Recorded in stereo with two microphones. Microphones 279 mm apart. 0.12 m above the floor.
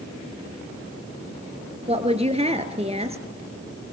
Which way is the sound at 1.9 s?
20° right (ahead or behind).